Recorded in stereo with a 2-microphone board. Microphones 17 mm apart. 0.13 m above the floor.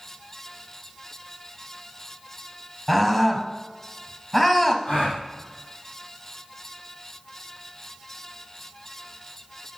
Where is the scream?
20° left (ahead or behind), 2.5 m.